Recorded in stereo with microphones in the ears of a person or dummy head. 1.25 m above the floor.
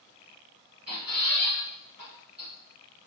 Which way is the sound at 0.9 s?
Centre (ahead or behind).